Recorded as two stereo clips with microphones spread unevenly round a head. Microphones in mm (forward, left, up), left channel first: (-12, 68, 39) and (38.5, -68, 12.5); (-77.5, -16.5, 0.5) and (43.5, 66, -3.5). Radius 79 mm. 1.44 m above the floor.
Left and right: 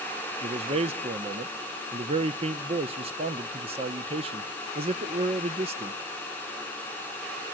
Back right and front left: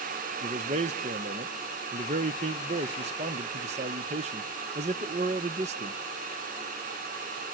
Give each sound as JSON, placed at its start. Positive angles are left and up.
{"t": 0.4, "sound": "a man speaking", "azimuth_deg": -15, "distance_m": 0.8}